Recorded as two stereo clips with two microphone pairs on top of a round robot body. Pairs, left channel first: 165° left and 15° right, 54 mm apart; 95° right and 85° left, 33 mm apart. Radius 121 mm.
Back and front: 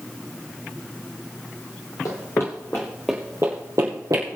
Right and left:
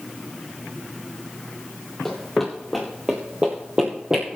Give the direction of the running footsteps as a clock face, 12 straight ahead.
6 o'clock.